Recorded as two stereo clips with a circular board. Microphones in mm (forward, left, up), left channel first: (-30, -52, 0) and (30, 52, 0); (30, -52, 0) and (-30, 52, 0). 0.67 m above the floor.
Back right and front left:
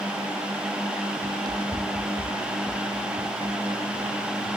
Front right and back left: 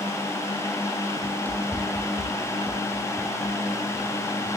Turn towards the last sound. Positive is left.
turn(degrees=20)